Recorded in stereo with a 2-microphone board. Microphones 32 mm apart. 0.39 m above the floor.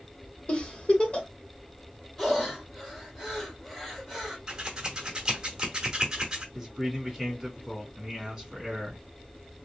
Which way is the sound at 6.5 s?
10° right (ahead or behind).